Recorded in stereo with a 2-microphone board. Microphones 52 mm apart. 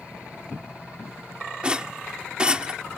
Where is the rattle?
20° right (ahead or behind).